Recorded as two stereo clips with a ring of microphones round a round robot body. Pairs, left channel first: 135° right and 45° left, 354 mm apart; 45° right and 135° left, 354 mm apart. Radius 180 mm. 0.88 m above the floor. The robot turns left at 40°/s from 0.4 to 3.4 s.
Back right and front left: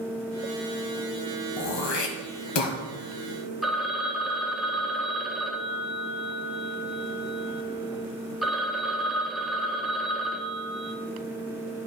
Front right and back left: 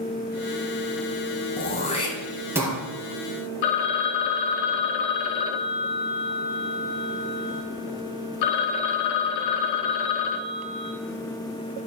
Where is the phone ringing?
45° right, 0.8 m.